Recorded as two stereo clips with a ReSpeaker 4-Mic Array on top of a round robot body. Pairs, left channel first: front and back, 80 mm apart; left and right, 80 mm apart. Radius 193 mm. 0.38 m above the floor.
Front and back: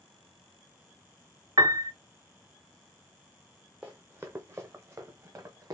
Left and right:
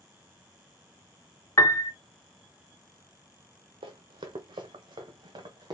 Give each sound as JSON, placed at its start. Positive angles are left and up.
{"t": 1.6, "sound": "a piano", "azimuth_deg": 140, "distance_m": 1.1}
{"t": 3.8, "sound": "running footsteps", "azimuth_deg": -105, "distance_m": 0.7}